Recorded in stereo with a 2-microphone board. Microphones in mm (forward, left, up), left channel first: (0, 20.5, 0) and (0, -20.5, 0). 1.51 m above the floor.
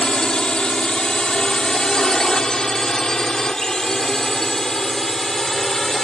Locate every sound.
0.0 s a drone: 20° left (ahead or behind); by 6.1 s 10° left (ahead or behind)